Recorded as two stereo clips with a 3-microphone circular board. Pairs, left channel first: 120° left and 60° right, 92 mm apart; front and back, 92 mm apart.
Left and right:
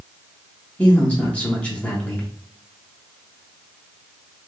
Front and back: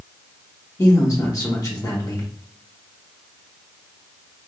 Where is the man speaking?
45° left, 1.1 m.